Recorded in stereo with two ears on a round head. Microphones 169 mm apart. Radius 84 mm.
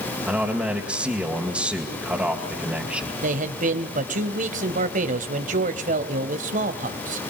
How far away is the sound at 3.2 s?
About 2.0 m.